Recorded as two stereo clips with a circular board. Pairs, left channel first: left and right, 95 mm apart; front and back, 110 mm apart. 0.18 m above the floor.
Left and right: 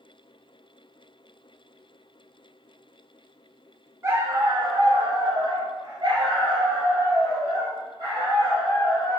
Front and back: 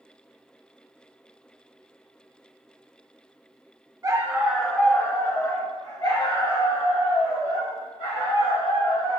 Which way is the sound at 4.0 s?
135° right.